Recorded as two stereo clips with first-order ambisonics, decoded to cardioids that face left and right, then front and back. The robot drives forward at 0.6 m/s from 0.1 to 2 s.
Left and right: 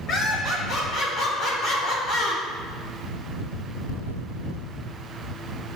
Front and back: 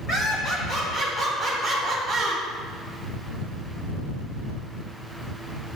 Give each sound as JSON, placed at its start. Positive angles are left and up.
{"t": 0.1, "sound": "laughter", "azimuth_deg": 40, "distance_m": 1.5}